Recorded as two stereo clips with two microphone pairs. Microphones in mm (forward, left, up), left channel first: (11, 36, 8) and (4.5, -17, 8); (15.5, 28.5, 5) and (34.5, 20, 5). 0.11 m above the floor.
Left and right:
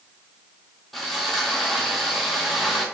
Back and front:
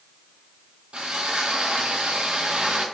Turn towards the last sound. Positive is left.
turn(degrees=-5)